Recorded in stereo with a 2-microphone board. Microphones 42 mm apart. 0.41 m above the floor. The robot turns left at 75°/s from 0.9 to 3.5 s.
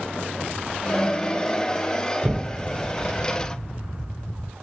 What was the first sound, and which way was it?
An explosion, 130° right.